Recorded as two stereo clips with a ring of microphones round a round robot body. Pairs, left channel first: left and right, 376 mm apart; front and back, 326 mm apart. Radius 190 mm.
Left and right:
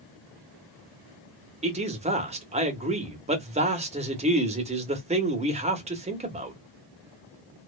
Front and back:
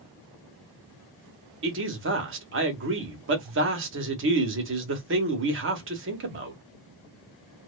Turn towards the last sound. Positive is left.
turn(degrees=-155)